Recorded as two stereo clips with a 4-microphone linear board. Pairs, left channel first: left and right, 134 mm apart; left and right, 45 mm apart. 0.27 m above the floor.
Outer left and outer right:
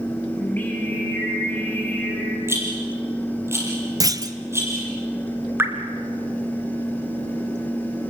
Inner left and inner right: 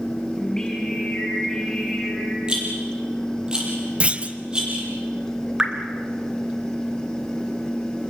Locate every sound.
0.4 s singing: 15° left (ahead or behind), 7.5 m
2.5 s a rattle: 20° right (ahead or behind), 6.5 m
4.0 s a clunk: 30° right (ahead or behind), 1.0 m
5.6 s dripping: 15° right (ahead or behind), 2.5 m